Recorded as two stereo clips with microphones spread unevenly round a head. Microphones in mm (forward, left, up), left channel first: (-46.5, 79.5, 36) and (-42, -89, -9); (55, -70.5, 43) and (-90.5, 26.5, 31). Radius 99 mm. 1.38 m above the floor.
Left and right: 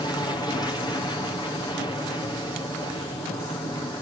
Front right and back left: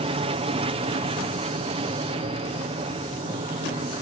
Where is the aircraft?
165° left.